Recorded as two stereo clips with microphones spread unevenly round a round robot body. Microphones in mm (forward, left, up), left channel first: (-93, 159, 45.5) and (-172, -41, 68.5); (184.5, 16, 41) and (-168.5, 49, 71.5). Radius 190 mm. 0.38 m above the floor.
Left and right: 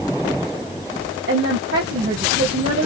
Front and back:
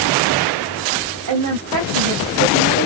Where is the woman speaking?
145° right, 3 m.